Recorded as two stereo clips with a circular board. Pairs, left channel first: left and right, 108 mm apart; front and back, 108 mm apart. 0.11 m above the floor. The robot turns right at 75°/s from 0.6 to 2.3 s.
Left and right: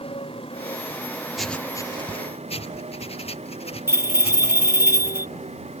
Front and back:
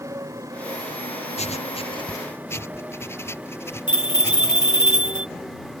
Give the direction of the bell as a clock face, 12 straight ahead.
1 o'clock.